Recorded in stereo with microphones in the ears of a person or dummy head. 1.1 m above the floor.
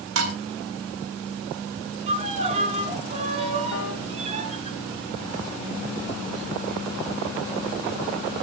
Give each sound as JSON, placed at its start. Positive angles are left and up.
{"t": 0.1, "sound": "dishes clattering", "side_deg": -75, "distance_m": 4.0}
{"t": 2.1, "sound": "a violin", "side_deg": -30, "distance_m": 2.5}
{"t": 3.7, "sound": "a piano", "side_deg": 75, "distance_m": 4.5}